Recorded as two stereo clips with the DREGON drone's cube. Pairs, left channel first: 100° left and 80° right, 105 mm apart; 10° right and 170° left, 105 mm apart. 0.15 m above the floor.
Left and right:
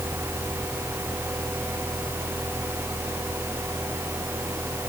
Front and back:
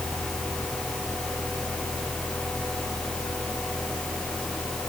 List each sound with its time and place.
Only background noise.